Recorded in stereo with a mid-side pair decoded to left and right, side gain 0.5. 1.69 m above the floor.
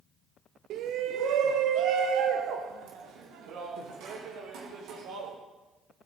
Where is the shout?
65° right, 0.8 m; by 5.3 s 80° right, 3.5 m.